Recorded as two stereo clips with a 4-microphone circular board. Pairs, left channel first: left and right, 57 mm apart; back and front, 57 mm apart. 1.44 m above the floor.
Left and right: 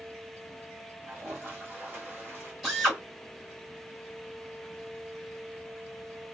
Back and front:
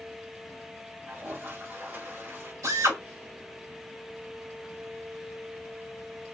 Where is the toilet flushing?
40° right, 1.7 m.